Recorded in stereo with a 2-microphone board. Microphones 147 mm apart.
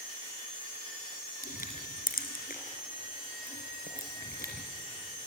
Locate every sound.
1.4 s crushing: 85° left, 2.5 m